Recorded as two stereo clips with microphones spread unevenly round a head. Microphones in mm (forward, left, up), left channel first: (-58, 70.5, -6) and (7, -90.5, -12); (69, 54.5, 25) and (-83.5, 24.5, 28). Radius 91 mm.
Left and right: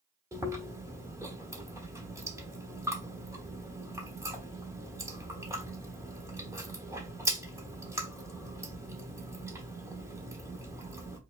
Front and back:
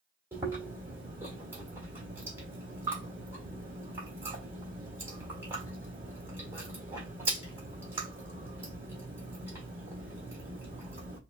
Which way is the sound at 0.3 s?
120° right.